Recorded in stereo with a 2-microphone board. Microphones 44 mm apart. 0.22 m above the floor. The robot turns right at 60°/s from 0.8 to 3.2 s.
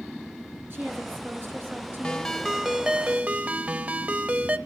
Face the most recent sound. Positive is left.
turn(degrees=-130)